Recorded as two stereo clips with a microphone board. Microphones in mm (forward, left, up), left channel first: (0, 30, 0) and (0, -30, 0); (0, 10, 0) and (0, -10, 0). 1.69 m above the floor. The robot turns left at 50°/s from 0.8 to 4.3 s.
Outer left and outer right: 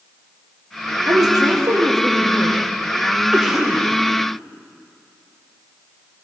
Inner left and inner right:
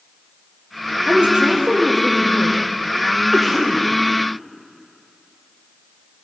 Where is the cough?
15° right (ahead or behind), 1.9 m; by 3.9 s 15° left (ahead or behind), 1.9 m.